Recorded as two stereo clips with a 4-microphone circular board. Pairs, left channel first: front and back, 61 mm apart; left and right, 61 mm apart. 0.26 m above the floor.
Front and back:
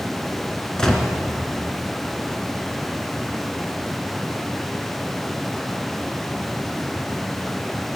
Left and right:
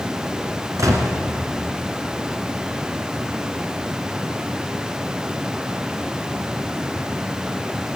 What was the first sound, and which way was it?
A gunshot, 80° right.